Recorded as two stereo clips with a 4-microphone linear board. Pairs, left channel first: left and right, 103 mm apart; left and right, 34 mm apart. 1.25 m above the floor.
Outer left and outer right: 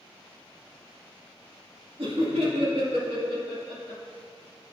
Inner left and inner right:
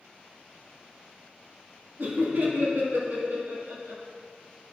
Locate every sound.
2.0 s laughter: 65° right (ahead or behind), 2.5 m; by 4.0 s 80° right, 3 m